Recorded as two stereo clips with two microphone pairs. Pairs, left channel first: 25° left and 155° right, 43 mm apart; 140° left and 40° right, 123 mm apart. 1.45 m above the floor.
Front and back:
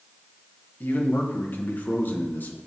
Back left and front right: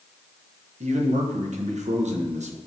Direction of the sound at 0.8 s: 20° right.